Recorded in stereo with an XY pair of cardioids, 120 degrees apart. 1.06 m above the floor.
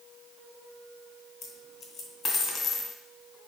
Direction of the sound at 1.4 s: 55° left.